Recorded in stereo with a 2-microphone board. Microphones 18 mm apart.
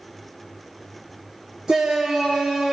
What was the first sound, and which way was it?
A shout, 50° right (ahead or behind).